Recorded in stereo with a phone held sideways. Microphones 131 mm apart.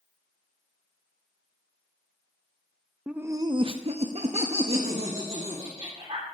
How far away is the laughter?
About 0.6 m.